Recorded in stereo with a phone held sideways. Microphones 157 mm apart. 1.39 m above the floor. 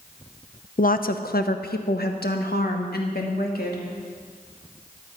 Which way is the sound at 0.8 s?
60° left (ahead or behind).